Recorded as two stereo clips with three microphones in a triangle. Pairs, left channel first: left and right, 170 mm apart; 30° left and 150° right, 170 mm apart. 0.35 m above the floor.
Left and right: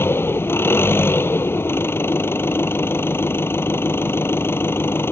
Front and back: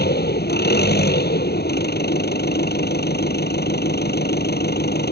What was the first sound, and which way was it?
An engine running, 15° left.